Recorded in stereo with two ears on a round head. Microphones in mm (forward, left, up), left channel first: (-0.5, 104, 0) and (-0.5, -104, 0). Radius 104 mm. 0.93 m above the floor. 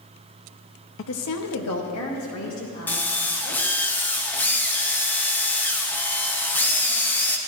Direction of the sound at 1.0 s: 55° left (ahead or behind).